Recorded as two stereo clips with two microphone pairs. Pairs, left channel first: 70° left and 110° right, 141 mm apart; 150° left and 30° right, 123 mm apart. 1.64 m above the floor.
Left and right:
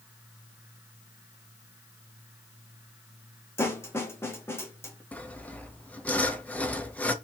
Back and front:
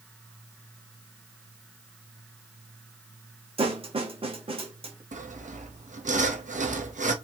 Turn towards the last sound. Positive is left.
turn(degrees=-10)